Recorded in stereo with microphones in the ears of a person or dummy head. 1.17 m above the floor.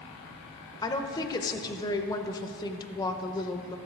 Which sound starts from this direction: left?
A woman speaking, at 0.8 s.